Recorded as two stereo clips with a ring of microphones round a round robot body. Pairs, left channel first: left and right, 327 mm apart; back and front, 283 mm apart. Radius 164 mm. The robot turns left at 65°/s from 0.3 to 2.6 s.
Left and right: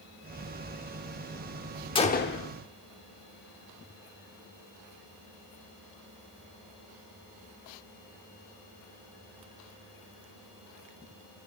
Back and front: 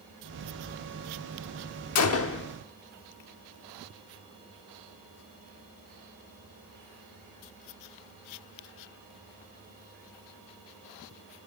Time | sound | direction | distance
1.9 | a gunshot | 165° left | 1.0 m